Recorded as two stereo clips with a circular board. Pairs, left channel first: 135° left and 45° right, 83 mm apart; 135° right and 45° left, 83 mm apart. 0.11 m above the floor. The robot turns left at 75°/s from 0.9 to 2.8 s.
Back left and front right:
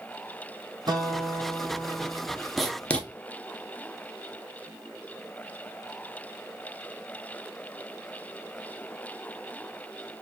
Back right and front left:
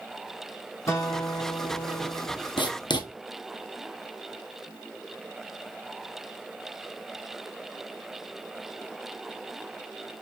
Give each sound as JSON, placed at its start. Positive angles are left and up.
{"t": 0.9, "sound": "a guitar", "azimuth_deg": -80, "distance_m": 1.0}
{"t": 2.6, "sound": "writing", "azimuth_deg": -130, "distance_m": 0.9}